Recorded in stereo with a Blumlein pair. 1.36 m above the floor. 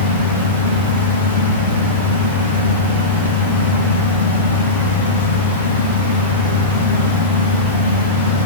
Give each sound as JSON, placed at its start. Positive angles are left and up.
{"t": 0.0, "sound": "a fan", "azimuth_deg": 65, "distance_m": 0.7}